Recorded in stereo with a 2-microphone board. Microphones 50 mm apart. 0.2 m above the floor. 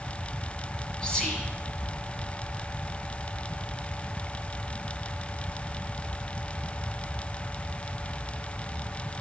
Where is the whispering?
15° left (ahead or behind), 1.4 m.